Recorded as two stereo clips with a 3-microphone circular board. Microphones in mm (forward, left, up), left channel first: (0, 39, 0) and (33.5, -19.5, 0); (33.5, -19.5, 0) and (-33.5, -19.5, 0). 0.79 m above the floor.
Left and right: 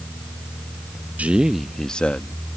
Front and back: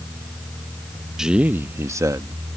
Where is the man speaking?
105° right; by 2.6 s straight behind.